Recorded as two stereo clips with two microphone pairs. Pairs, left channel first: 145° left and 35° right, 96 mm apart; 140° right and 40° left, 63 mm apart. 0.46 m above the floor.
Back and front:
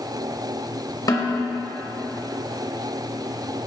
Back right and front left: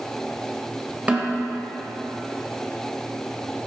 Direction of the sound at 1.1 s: 105° left.